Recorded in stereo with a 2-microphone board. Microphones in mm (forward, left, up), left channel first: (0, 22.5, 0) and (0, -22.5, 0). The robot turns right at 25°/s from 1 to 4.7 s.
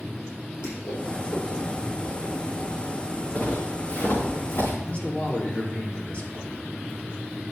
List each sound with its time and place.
0.6 s a whoosh: 70° left (ahead or behind), 5.5 m; by 4.3 s 25° left (ahead or behind), 5.5 m
3.4 s footsteps: 45° left (ahead or behind), 4.5 m; by 4.7 s 80° left, 5 m
4.8 s a man speaking: 30° left (ahead or behind), 2 m